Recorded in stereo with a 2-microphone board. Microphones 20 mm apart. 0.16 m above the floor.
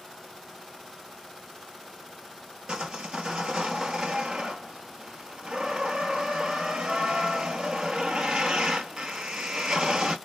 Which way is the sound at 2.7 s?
55° right (ahead or behind).